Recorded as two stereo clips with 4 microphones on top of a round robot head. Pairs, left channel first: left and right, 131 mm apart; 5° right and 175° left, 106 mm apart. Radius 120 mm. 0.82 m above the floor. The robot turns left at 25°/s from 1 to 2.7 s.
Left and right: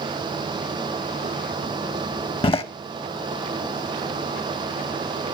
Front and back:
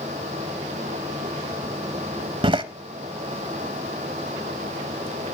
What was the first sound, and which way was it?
A door slam, 135° left.